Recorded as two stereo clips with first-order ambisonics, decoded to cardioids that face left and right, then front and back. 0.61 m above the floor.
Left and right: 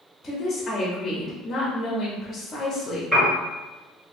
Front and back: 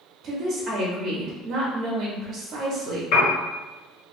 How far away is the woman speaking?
About 0.7 m.